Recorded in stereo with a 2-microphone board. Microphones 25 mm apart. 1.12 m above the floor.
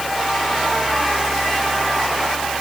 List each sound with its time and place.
Only background noise.